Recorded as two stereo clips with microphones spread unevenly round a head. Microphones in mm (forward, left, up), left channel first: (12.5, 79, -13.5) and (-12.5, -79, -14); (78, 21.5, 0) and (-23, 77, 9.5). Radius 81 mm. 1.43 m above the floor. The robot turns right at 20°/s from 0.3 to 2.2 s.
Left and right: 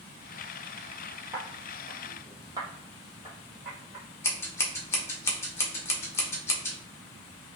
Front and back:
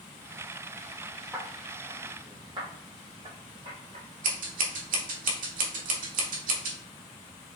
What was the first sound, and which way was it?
Footsteps, 165° right.